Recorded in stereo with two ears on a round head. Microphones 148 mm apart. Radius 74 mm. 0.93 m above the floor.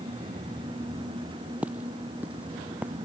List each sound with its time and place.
1.6 s footsteps: 10° right (ahead or behind)